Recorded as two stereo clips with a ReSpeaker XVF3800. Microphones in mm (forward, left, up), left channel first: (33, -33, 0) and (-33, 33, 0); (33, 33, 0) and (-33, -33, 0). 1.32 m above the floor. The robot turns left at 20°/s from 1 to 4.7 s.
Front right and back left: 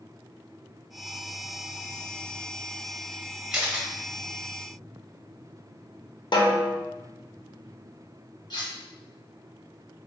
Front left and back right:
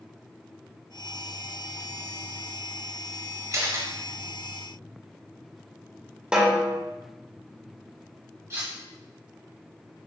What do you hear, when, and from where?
3.5 s a camera shutter: 150° right, 1.3 m; by 3.9 s 160° right, 1.3 m
6.3 s a snare drum: 60° right, 0.9 m
8.5 s cutlery clinking: 85° right, 1.4 m